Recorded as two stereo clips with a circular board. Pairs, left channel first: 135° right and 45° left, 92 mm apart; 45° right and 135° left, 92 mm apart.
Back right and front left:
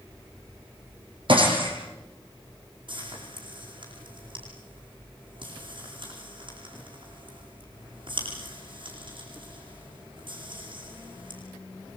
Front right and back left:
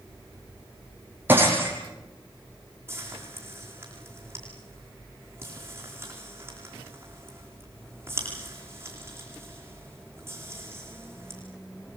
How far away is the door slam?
No door slam in this recording.